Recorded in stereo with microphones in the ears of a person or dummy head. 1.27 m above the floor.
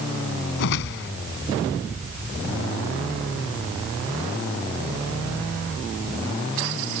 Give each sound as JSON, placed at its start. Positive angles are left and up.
{"t": 0.6, "sound": "a whoosh", "side_deg": 60}